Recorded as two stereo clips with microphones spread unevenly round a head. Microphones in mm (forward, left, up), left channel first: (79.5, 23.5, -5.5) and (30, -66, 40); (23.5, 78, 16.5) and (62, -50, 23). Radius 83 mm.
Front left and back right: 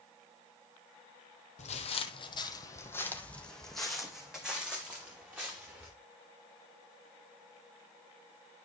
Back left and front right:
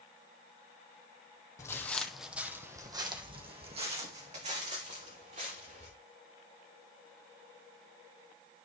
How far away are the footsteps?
About 1.5 m.